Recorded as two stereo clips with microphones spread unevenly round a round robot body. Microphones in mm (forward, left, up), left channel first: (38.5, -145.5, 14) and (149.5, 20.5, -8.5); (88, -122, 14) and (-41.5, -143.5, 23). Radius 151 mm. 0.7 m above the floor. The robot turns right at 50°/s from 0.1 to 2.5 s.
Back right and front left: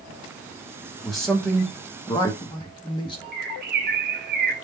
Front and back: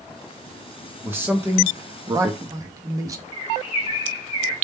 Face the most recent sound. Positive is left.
turn(degrees=45)